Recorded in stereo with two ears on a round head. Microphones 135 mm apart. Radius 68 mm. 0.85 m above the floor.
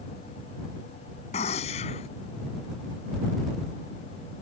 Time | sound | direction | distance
1.3 | a gunshot | 45° left (ahead or behind) | ?